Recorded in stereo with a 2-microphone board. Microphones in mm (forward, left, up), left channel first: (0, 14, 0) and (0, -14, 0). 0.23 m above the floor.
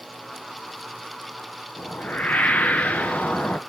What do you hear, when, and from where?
1.8 s a whoosh: 60° left (ahead or behind), 1.0 m